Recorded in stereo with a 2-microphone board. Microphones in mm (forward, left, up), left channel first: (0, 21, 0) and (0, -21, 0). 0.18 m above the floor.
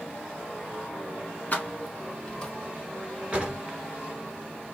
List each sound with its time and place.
1.5 s keys jangling: 40° left (ahead or behind), 1.0 m; by 2.5 s 15° left (ahead or behind), 0.7 m
3.3 s a drawer: 20° right (ahead or behind), 0.9 m